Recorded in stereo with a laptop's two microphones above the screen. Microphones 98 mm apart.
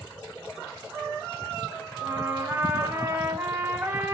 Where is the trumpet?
20° right (ahead or behind), 0.7 m.